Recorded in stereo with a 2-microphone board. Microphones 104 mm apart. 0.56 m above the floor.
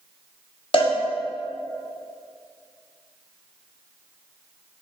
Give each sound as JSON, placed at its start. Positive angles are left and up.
{"t": 0.7, "sound": "a cowbell", "side_deg": 55, "distance_m": 0.7}